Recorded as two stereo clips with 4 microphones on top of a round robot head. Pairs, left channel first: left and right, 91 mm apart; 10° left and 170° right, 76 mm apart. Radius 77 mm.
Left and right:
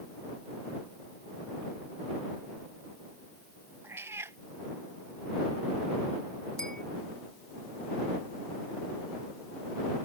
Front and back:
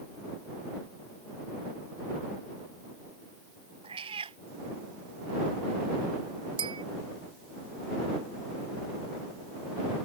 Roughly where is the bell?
Behind.